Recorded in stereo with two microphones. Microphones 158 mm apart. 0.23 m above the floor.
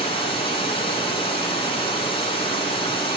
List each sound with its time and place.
0.0 s running water: 35° left (ahead or behind), 1.7 m